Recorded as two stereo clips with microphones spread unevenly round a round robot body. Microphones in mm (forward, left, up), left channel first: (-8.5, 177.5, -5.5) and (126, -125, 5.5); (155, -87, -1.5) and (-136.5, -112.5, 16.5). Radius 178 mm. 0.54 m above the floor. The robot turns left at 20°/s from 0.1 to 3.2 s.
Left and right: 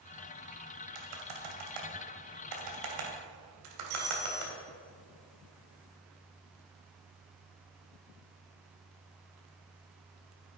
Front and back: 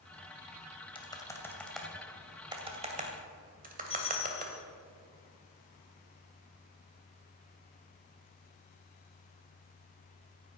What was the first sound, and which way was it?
Typing on a keyboard, 65° right.